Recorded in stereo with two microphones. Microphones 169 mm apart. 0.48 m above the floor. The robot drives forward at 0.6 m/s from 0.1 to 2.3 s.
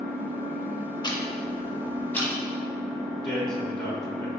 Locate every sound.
0.0 s an engine running: 35° right (ahead or behind), 1.5 m; by 4.4 s 20° right (ahead or behind), 2.5 m
1.0 s ticking: 25° left (ahead or behind), 0.5 m; by 2.3 s 10° left (ahead or behind), 1.3 m
3.2 s a man speaking: 5° left (ahead or behind), 1.2 m